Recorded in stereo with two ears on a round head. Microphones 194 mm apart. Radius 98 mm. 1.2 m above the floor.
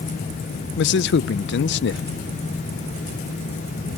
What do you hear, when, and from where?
0.8 s a man speaking: 50° left (ahead or behind), 0.5 m